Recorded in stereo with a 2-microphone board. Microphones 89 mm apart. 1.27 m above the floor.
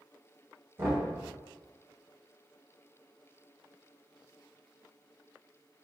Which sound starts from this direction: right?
Knocking, at 0.8 s.